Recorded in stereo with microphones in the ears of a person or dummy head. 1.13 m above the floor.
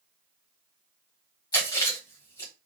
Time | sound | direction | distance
1.5 | chewing | 25° left (ahead or behind) | 1.4 m